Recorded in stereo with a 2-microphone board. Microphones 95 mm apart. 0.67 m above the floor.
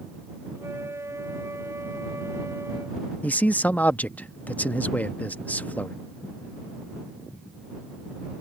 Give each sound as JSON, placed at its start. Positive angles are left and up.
{"t": 0.6, "sound": "a flute", "side_deg": -30}
{"t": 3.2, "sound": "a man speaking", "side_deg": 15}